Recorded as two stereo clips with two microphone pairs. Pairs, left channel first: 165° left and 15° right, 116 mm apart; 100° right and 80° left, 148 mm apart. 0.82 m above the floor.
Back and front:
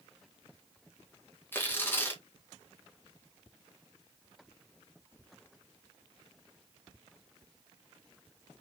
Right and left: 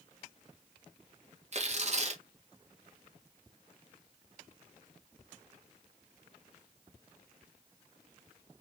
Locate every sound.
1.5 s tearing paper: 100° left, 0.9 m